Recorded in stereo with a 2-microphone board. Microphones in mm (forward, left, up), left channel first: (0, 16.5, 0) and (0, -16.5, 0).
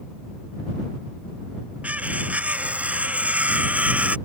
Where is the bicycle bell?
I don't hear a bicycle bell.